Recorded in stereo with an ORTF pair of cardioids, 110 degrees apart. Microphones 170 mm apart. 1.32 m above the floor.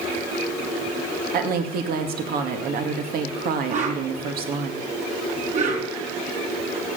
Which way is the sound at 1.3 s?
60° right.